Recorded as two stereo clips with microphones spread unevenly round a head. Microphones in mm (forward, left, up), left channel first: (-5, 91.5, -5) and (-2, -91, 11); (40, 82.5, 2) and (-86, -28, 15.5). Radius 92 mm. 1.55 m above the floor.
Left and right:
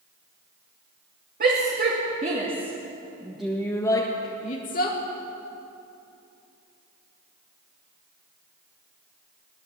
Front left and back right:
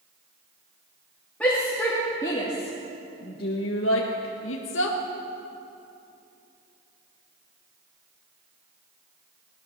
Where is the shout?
45° right, 3 m; by 5.0 s 50° left, 1.9 m.